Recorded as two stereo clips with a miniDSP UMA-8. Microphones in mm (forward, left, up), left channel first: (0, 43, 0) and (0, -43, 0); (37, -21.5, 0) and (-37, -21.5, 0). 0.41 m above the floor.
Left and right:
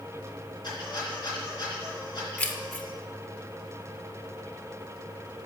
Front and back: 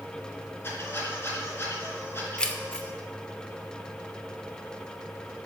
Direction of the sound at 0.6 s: 60° left.